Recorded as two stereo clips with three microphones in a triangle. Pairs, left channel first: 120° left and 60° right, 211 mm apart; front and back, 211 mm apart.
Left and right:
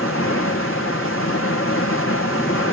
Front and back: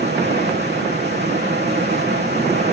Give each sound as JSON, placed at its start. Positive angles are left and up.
{"t": 0.0, "sound": "running water", "azimuth_deg": 140, "distance_m": 1.8}